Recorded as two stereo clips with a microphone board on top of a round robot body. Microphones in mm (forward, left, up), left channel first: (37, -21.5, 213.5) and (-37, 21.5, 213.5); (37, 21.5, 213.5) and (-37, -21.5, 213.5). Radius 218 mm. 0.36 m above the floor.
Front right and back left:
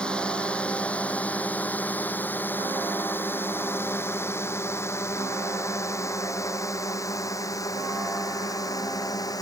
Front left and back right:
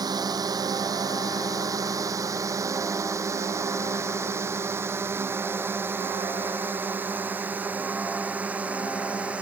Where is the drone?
110° right; by 9.4 s 75° right.